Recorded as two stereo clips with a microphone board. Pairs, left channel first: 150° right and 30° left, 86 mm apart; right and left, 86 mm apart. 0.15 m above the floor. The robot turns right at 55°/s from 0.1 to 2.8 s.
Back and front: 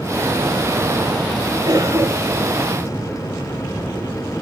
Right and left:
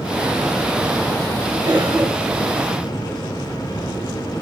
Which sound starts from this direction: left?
A cough, at 1.6 s.